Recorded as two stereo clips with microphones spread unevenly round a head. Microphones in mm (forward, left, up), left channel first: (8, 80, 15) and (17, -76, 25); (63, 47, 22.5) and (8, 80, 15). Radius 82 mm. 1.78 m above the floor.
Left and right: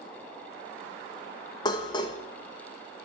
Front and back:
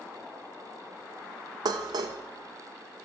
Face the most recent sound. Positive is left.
turn(degrees=160)